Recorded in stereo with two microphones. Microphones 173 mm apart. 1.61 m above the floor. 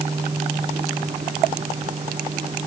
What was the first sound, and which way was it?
Only background noise.